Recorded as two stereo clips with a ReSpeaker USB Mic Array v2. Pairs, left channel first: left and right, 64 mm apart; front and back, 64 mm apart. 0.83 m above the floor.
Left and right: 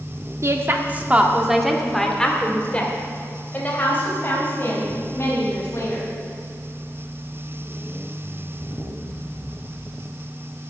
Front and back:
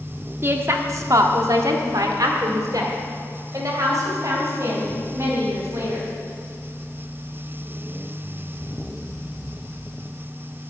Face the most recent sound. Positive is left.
turn(degrees=140)